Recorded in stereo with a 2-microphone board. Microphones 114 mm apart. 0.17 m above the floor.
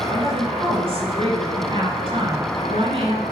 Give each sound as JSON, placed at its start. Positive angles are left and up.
{"t": 0.1, "sound": "a woman speaking", "side_deg": -55, "distance_m": 3.0}